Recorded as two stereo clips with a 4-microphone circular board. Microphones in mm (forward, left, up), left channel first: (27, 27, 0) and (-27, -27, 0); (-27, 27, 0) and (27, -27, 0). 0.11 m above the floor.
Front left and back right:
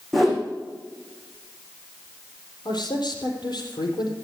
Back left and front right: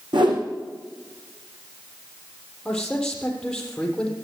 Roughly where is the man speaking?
Ahead left.